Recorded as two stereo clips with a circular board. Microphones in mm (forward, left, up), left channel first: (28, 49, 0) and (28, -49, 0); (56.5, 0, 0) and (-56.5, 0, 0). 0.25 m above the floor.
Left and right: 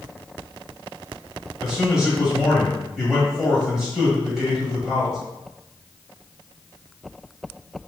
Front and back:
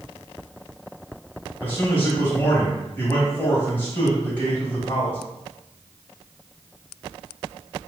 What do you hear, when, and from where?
1.6 s a man speaking: 10° right, 1.3 m